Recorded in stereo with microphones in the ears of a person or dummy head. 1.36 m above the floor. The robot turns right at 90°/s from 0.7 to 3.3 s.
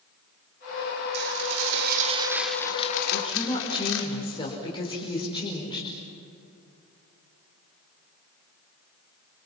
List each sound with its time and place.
1.1 s dishes clattering: 120° right, 3 m; by 4.1 s 70° left, 3 m
3.1 s a woman speaking: 45° left (ahead or behind), 5 m; by 5.9 s 25° left (ahead or behind), 5 m